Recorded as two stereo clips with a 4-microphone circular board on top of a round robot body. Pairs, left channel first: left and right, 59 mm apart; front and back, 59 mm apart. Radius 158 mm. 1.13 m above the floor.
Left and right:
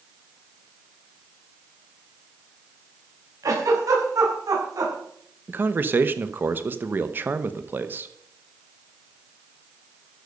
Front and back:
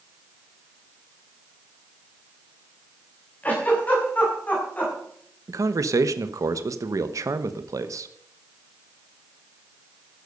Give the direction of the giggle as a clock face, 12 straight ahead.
2 o'clock.